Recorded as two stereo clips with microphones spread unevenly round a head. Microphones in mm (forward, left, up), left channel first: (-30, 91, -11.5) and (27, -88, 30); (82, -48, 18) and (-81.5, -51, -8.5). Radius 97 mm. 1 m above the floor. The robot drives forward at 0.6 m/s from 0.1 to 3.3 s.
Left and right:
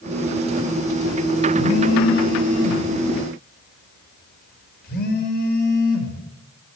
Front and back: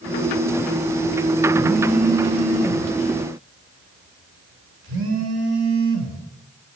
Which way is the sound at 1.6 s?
115° left.